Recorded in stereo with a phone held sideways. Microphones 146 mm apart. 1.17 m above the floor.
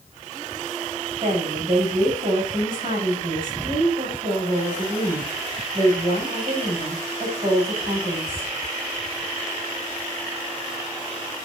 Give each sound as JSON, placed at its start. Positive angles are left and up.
{"t": 1.2, "sound": "a woman speaking", "side_deg": -40, "distance_m": 6.5}